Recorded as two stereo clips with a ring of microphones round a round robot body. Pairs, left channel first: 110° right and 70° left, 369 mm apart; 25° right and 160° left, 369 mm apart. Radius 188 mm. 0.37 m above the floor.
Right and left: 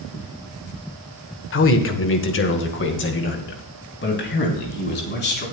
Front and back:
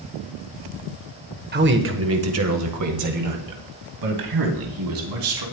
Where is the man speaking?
150° right, 1.5 m; by 5.4 s 175° right, 4 m.